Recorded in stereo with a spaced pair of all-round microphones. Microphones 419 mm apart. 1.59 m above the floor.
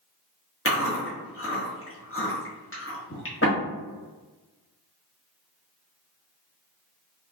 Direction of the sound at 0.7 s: 30° left (ahead or behind).